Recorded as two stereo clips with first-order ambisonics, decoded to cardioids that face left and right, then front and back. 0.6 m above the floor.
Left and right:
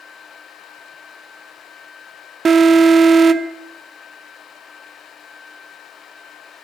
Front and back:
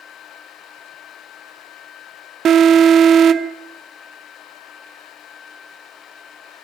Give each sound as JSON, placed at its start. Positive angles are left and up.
{"t": 2.5, "sound": "an alarm", "azimuth_deg": -150, "distance_m": 0.7}